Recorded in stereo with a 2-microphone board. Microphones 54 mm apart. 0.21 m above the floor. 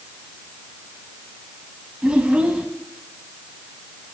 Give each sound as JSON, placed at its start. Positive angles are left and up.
{"t": 2.0, "sound": "a child speaking", "side_deg": -25, "distance_m": 0.8}